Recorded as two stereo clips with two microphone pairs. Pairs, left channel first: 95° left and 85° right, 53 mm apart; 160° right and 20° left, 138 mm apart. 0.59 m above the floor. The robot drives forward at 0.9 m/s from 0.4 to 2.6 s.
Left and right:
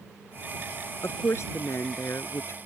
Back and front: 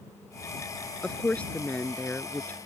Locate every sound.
1.0 s a woman speaking: 120° left; by 2.6 s 125° left